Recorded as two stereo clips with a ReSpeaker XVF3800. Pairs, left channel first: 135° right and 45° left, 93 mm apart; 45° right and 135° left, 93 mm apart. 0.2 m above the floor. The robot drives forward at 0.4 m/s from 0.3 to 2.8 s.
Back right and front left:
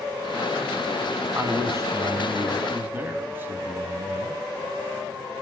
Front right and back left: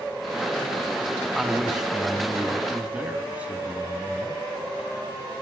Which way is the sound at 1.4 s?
45° left.